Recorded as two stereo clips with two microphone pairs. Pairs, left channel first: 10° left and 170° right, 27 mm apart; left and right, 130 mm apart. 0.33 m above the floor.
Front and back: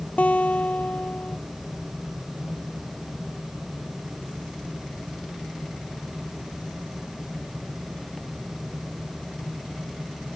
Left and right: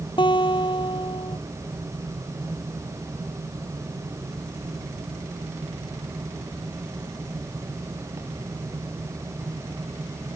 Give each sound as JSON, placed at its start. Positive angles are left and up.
{"t": 0.2, "sound": "a guitar", "azimuth_deg": 40}